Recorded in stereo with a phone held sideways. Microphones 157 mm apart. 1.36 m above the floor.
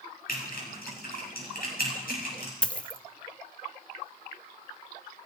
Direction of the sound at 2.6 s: 5° left (ahead or behind).